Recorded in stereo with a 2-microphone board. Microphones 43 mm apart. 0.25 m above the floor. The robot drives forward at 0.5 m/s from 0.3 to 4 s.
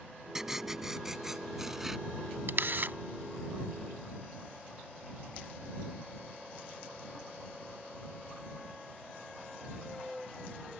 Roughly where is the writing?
Centre.